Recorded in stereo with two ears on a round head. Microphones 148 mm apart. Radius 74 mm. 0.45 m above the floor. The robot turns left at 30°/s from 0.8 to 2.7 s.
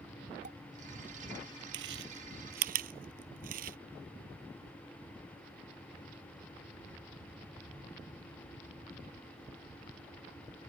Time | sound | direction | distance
0.4 | a pop | 50° right (ahead or behind) | ?
1.7 | chewing | 80° right | ?